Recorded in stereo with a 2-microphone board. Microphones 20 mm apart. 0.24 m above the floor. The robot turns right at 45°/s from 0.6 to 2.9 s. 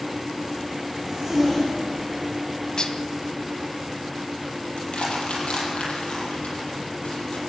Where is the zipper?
30° right (ahead or behind), 8 m; by 2.3 s 30° left (ahead or behind), 8 m.